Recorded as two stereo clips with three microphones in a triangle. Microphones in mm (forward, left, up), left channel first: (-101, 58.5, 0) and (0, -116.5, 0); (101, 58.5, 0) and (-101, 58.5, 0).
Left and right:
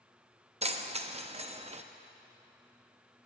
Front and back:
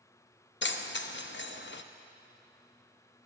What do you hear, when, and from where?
0.6 s keys jangling: 10° right, 0.5 m